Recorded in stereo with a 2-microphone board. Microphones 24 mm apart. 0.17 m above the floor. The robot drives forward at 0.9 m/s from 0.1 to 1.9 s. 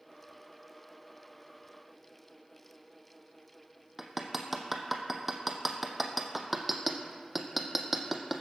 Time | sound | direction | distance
4.0 | hammering | 5° right (ahead or behind) | 1.5 m